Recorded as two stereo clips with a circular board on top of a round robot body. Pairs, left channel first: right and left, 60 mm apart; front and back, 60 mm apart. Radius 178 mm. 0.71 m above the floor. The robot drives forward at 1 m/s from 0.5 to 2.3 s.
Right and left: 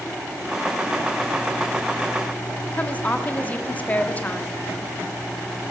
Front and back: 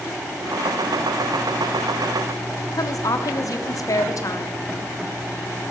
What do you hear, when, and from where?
2.7 s a woman speaking: 25° right, 1.5 m